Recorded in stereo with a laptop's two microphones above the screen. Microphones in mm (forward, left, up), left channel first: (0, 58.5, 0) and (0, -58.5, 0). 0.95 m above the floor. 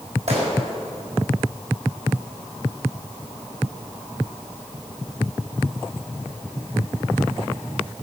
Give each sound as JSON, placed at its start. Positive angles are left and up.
{"t": 0.3, "sound": "a gunshot", "side_deg": -70, "distance_m": 5.0}